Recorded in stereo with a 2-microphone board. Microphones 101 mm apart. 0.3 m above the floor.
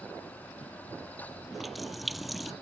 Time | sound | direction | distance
1.5 | a running tap | centre (ahead or behind) | ?